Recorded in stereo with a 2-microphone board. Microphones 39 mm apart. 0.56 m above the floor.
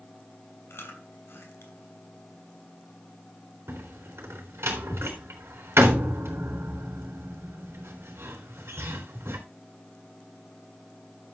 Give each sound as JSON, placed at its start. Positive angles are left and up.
{"t": 0.7, "sound": "chewing", "side_deg": 70, "distance_m": 3.5}
{"t": 3.7, "sound": "a door slam", "side_deg": -85, "distance_m": 3.5}